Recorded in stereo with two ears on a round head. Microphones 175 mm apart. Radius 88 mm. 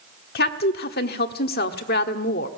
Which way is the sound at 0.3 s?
55° left (ahead or behind).